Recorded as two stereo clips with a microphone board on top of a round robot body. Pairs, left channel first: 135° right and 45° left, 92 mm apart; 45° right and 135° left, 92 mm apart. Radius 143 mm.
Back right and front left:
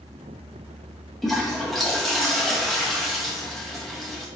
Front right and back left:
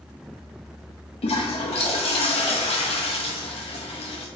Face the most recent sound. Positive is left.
turn(degrees=-45)